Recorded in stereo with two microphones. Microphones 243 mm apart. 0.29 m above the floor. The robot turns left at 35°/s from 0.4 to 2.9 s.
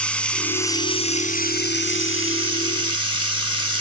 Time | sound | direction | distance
0.0 | running water | 175° left | 2.5 m